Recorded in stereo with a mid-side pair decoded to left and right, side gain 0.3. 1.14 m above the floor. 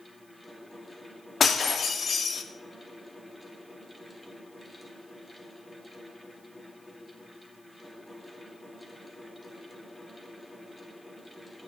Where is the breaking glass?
60° left, 1.3 m.